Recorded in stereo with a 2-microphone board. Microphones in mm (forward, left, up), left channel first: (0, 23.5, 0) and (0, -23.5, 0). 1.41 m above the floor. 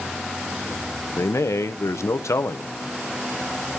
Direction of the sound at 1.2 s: 75° left (ahead or behind).